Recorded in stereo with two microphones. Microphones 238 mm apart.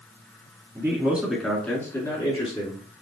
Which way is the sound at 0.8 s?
15° right (ahead or behind).